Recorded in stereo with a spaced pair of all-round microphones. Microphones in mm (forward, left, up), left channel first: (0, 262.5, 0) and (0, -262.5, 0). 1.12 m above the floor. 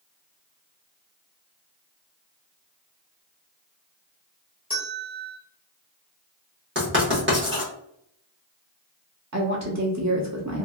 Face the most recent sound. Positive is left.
turn(degrees=-35)  # may be behind; listen again after turning